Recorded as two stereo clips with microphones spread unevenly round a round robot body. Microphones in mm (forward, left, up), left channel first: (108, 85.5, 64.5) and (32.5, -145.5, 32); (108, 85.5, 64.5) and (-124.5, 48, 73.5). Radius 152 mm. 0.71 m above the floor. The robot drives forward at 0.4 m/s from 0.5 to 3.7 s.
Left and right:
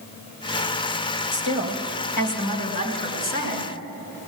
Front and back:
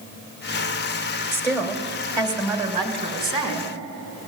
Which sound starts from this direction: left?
A woman speaking, at 1.3 s.